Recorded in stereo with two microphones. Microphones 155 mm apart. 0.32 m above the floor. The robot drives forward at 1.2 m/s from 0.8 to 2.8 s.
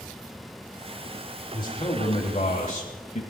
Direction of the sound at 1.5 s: 30° left (ahead or behind).